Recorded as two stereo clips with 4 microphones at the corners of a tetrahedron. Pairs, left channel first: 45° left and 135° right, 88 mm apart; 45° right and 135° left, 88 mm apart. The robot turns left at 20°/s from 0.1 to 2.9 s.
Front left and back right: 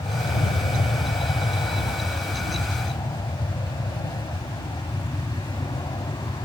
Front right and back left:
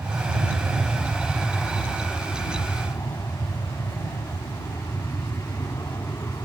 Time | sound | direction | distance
0.0 | an aircraft | 65° left | ?